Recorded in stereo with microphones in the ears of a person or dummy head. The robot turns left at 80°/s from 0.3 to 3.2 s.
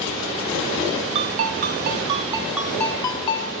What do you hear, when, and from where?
1.1 s a ringtone: 60° right, 0.6 m; by 3.5 s 135° left, 0.6 m